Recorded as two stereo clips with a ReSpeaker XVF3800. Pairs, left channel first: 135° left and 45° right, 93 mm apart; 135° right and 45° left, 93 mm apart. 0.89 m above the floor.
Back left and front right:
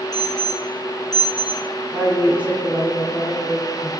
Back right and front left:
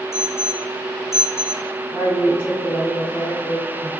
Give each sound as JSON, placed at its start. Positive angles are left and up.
{"t": 0.1, "sound": "an alarm", "azimuth_deg": 170, "distance_m": 3.5}
{"t": 1.9, "sound": "a woman speaking", "azimuth_deg": -115, "distance_m": 3.5}